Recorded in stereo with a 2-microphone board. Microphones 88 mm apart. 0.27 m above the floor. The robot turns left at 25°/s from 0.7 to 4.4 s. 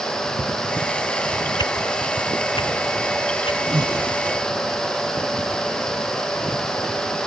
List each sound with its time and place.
1.6 s a whoosh: 50° left (ahead or behind); by 3.6 s 80° left
3.7 s breathing: 60° right (ahead or behind); by 4.1 s 55° right (ahead or behind)